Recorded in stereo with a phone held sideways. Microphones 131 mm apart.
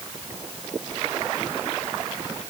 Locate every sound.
Only background noise.